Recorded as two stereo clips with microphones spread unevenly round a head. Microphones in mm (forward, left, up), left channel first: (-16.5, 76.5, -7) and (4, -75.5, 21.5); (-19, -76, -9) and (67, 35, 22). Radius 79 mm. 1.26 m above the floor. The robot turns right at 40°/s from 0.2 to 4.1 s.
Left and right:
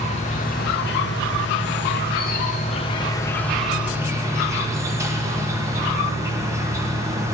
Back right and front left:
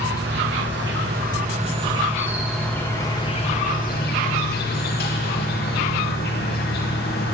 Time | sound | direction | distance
0.0 | an insect | 50° left | 1.2 m